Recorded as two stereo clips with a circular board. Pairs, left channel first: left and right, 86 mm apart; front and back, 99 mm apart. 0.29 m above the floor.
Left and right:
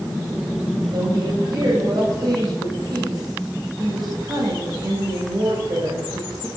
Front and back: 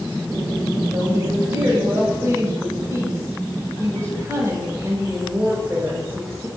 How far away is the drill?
No drill in this recording.